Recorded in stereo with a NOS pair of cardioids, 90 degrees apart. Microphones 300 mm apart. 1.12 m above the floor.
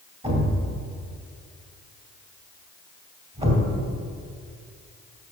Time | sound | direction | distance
0.2 | a thud | 20° right | 2.5 m